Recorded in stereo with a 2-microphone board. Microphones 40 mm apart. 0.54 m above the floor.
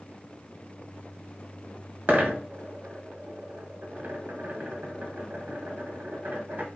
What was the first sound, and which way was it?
A dropped coin, 55° right (ahead or behind).